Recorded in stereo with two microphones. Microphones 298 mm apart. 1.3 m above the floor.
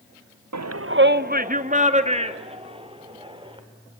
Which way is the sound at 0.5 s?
70° right (ahead or behind).